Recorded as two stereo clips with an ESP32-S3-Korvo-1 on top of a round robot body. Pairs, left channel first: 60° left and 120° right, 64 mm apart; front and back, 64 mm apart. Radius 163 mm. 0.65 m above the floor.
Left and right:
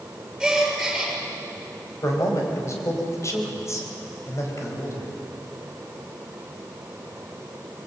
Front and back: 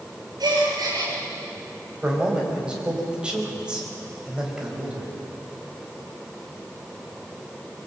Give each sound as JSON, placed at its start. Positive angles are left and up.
{"t": 0.4, "sound": "a gasp", "azimuth_deg": 155, "distance_m": 6.5}
{"t": 2.0, "sound": "a man speaking", "azimuth_deg": 105, "distance_m": 5.0}